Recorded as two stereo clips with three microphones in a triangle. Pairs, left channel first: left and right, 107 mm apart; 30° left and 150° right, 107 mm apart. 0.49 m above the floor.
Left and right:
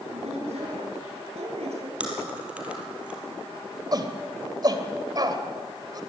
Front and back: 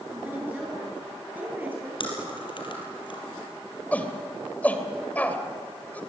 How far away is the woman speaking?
About 9 m.